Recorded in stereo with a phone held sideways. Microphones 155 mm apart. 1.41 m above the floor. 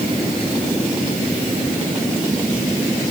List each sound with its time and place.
Only background noise.